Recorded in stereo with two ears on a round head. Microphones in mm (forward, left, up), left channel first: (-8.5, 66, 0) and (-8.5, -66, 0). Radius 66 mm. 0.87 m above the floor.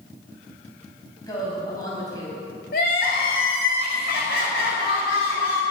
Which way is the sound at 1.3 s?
25° left (ahead or behind).